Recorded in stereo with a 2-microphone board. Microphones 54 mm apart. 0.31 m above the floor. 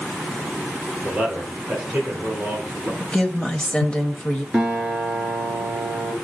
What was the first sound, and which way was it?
A man speaking, 15° right (ahead or behind).